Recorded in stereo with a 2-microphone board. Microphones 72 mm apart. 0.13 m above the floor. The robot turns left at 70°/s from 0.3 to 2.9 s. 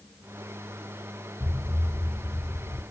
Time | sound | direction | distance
1.4 | an explosion | 155° right | 2.5 m